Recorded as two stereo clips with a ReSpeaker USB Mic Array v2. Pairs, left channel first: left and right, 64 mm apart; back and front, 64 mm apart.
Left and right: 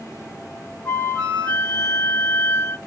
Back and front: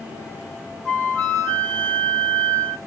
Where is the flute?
135° left, 1.1 m.